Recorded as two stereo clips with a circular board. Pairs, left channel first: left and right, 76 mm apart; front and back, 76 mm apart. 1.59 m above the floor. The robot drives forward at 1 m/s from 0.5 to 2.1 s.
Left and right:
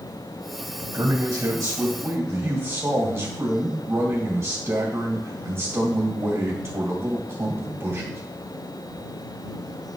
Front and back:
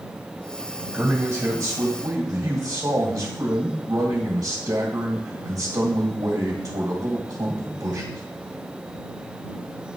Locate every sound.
0.9 s a man speaking: 110° right, 1.4 m; by 8.2 s 140° right, 2 m